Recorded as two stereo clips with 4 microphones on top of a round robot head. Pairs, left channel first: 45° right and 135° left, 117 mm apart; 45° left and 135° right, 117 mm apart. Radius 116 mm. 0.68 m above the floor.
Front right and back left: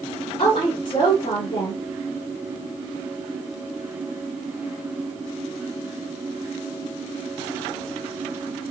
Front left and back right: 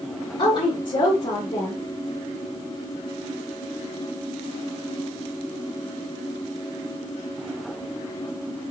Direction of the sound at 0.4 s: Straight ahead.